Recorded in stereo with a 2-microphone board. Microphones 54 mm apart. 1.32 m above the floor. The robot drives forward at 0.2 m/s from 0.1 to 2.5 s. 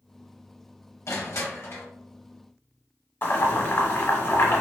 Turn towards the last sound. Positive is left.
turn(degrees=40)  # may be behind; listen again after turning